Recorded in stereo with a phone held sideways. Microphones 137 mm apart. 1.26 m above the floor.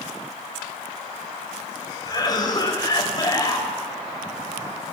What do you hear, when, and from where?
2.0 s a cough: 30° left (ahead or behind), 5 m